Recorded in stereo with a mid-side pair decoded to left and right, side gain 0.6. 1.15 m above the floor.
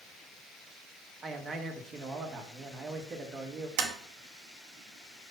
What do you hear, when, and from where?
1.2 s a man speaking: 30° right, 1.4 m
3.8 s tapping: 70° right, 1.4 m